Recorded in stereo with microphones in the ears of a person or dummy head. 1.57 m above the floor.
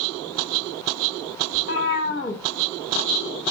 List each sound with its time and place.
1.5 s a cat meowing: 35° left (ahead or behind), 1.1 m